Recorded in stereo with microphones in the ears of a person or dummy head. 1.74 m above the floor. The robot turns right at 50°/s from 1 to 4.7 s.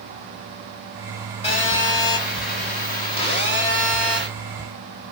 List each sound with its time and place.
1.4 s a phone buzzing: 50° left, 1.5 m; by 4.3 s 170° right, 1.5 m